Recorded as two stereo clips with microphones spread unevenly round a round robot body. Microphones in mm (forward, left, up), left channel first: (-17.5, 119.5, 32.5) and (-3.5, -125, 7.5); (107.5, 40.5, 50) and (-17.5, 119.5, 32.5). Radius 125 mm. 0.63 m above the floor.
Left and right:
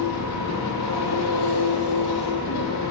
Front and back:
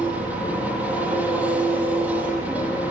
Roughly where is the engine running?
Left.